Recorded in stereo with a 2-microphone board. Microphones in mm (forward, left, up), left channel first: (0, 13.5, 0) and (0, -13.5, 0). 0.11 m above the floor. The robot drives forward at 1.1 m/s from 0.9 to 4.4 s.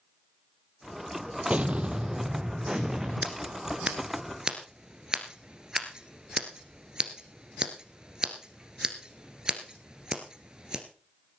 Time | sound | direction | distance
1.5 | an explosion | 50° right (ahead or behind) | 0.8 m
3.2 | scissors | 35° right (ahead or behind) | 1.7 m